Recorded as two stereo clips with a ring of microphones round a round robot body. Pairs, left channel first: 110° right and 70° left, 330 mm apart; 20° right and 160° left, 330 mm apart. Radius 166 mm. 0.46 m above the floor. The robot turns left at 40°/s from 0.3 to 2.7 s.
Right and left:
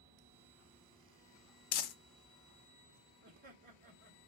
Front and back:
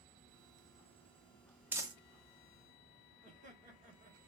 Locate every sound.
1.7 s crumpling: 120° right, 0.5 m; by 1.9 s 125° right, 0.5 m
3.2 s laughter: 110° left, 1.2 m